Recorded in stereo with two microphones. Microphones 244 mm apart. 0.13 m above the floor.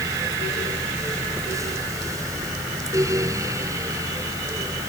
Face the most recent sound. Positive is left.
No sound to turn to.